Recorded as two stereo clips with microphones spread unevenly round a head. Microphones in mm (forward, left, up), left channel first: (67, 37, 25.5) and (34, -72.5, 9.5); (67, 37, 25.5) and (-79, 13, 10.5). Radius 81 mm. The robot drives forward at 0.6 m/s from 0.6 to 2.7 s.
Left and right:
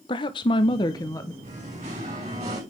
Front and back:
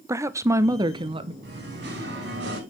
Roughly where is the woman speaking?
Behind left.